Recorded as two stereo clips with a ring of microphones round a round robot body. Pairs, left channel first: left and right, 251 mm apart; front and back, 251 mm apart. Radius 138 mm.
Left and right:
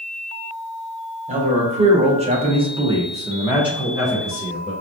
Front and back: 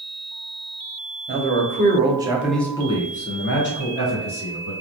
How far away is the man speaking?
About 1.0 m.